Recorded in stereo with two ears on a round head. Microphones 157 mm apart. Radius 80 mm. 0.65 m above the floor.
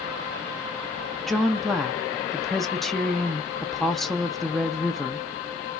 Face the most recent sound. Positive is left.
turn(degrees=0)  # may be behind; listen again after turning